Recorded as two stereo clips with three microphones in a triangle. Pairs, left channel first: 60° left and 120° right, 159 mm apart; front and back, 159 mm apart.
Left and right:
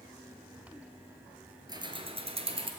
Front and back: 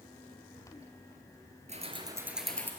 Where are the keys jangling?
175° right, 1.3 m; by 2.7 s 75° right, 1.4 m.